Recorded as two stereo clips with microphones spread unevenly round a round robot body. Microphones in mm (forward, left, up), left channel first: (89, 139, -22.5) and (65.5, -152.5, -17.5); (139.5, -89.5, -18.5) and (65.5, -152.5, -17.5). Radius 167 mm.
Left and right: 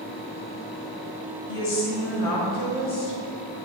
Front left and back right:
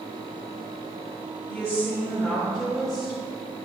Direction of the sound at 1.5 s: 105° left.